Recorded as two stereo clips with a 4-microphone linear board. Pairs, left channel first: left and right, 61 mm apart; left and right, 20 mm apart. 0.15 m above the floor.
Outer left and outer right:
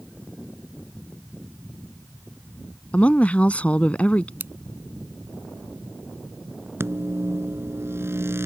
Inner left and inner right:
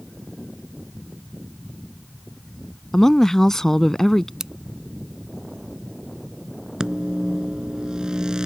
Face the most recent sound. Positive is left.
turn(degrees=-45)  # may be behind; listen again after turning